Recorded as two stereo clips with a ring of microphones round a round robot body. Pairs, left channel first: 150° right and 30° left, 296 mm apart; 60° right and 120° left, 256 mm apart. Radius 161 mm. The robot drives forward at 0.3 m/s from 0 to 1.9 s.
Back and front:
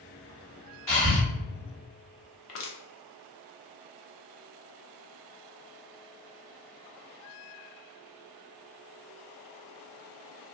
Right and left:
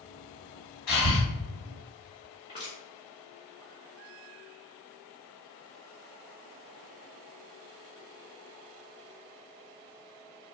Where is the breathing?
85° right, 1.3 m; by 1.2 s 90° right, 1.3 m.